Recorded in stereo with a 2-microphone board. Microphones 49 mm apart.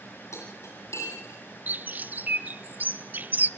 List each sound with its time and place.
0.3 s cutlery clinking: 75° left (ahead or behind), 9 m
1.7 s a bird: 40° right (ahead or behind), 0.7 m